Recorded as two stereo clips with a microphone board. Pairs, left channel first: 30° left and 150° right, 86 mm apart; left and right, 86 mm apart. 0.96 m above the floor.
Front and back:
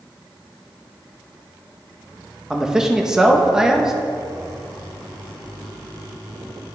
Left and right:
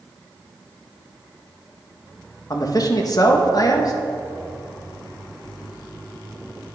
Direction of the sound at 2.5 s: 130° left.